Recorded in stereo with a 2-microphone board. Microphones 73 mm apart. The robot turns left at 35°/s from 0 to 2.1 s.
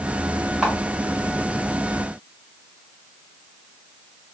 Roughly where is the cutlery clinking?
No cutlery clinking in this recording.